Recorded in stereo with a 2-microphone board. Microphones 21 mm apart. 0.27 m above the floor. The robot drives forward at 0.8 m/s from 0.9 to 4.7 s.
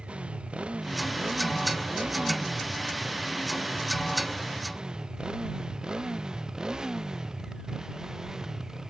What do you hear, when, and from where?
0.0 s a motorcycle: 60° right (ahead or behind); by 8.9 s 25° right (ahead or behind)